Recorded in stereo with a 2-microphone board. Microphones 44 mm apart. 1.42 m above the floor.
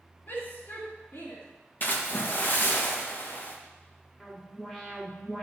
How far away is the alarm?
About 3.5 m.